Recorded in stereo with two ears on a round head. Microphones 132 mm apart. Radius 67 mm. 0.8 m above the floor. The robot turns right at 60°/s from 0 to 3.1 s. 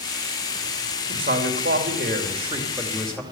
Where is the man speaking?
115° right, 3 m; by 3.2 s 5° left, 3 m.